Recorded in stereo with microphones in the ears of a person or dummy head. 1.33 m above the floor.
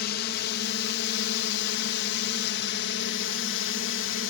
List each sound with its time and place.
0.0 s a drone: 55° left (ahead or behind); by 4.3 s 60° left (ahead or behind)